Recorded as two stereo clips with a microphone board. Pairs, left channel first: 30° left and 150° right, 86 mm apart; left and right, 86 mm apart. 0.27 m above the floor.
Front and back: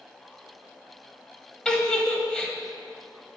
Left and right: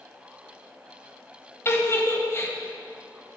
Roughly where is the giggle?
Left.